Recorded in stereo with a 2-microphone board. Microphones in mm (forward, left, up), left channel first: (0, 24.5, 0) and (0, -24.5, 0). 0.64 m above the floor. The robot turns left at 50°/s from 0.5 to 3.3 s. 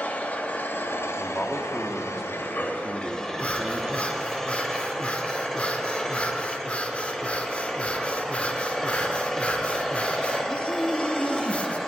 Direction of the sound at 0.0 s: 145° left.